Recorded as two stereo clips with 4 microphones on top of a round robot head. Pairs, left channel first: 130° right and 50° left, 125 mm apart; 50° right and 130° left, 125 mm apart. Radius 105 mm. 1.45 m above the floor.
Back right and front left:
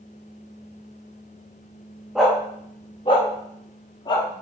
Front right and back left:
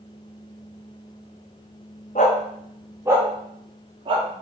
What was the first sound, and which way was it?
A dog barking, 35° right.